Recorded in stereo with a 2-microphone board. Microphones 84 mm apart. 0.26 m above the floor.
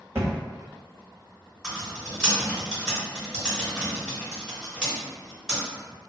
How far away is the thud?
About 1.1 m.